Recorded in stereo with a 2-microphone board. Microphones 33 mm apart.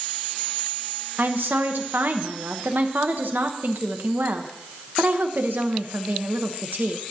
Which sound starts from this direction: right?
A woman speaking, at 1.2 s.